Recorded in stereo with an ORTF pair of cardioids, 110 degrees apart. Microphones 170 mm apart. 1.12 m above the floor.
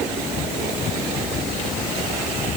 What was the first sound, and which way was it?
Only background noise.